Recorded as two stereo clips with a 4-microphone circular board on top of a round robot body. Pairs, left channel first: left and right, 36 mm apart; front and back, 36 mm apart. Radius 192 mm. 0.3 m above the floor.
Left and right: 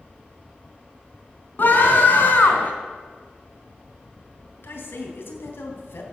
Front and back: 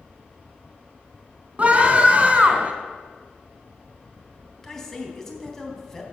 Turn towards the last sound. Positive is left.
turn(degrees=80)